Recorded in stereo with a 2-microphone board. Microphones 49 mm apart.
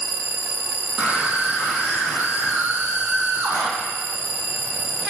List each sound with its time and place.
1.0 s a scream: 35° right (ahead or behind), 6.5 m; by 3.7 s 45° right (ahead or behind), 8 m